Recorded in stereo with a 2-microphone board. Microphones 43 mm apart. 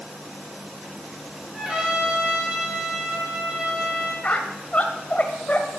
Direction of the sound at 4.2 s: 35° left (ahead or behind).